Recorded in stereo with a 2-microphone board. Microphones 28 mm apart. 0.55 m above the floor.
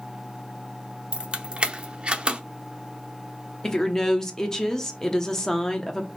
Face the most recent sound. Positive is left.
turn(degrees=15)  # may be behind; listen again after turning